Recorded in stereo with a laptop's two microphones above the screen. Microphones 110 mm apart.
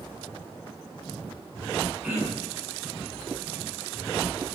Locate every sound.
2.0 s throat clearing: 20° right (ahead or behind), 4.5 m